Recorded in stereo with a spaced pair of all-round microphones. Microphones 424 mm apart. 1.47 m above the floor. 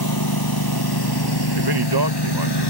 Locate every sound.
0.0 s a lawn mower: 55° left (ahead or behind); by 2.7 s 70° left (ahead or behind)
1.6 s a man speaking: 65° right (ahead or behind)